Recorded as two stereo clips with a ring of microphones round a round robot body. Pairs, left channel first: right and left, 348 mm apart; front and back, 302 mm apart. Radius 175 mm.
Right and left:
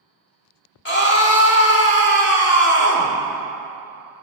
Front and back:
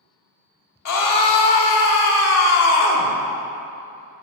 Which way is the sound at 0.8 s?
35° right.